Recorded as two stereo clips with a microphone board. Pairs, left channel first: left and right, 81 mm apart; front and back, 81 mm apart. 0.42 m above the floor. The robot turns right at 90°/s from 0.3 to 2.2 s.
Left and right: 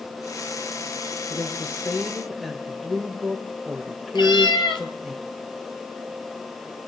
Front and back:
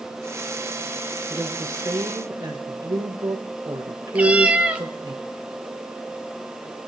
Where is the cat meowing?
105° left, 0.9 m.